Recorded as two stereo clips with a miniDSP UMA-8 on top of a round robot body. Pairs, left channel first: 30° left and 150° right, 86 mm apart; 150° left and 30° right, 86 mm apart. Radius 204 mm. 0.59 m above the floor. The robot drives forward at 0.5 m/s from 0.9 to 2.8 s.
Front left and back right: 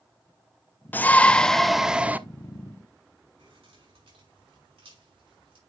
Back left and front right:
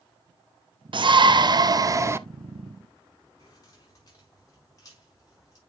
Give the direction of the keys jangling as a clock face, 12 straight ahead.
5 o'clock.